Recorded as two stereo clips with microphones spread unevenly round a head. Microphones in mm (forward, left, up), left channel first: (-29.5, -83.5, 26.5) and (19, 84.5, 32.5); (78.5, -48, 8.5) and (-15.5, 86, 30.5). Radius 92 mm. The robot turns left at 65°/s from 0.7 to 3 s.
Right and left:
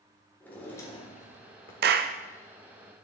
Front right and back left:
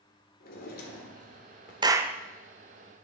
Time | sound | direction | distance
0.4 | a drawer | 25° right | 1.5 m
1.8 | a clap | 60° left | 0.6 m